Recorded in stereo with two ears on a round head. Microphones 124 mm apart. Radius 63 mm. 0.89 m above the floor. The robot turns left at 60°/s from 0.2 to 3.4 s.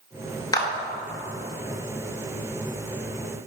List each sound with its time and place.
0.5 s a clap: 30° left (ahead or behind), 2 m; by 0.7 s 20° left (ahead or behind), 2 m